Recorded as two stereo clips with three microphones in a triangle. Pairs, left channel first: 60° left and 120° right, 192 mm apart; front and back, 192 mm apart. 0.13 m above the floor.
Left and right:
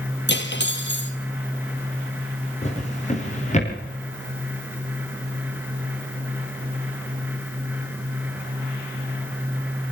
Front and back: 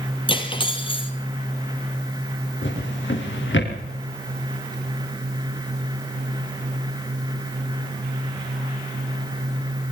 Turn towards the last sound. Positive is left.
turn(degrees=5)